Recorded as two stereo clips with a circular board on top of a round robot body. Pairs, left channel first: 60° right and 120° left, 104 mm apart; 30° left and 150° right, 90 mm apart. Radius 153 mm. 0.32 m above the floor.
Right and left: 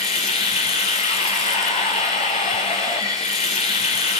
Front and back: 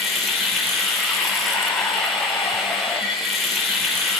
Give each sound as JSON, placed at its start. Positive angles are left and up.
{"t": 0.0, "sound": "running water", "azimuth_deg": -60, "distance_m": 5.0}